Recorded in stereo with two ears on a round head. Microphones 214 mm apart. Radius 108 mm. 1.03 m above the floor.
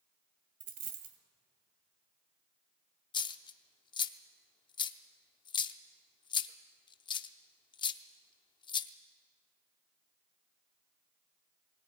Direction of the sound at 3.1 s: 20° left (ahead or behind).